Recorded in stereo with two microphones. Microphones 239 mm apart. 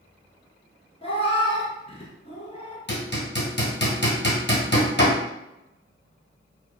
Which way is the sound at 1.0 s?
25° left (ahead or behind).